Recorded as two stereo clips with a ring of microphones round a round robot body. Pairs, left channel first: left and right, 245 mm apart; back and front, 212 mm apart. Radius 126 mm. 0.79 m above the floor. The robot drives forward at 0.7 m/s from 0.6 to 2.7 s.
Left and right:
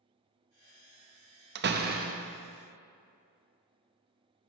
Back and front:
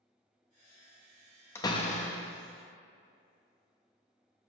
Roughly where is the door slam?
Right.